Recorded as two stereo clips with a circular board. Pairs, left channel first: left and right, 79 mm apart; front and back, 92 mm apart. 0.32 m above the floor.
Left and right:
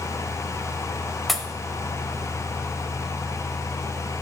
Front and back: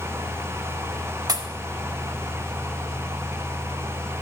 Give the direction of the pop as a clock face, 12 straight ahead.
6 o'clock.